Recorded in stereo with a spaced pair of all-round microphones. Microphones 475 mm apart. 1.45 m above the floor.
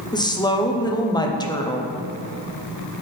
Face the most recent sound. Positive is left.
turn(degrees=10)  # may be behind; listen again after turning